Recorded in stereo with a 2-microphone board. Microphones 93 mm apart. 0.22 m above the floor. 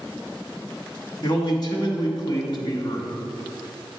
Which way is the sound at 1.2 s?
50° left (ahead or behind).